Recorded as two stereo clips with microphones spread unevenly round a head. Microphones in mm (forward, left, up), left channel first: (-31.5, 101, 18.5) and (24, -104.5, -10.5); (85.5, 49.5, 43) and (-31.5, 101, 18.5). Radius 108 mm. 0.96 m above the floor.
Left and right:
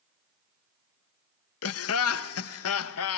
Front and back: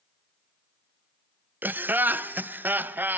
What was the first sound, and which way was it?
Laughter, 85° left.